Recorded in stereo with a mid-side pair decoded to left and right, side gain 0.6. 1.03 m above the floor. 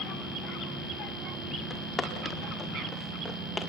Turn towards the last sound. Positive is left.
turn(degrees=15)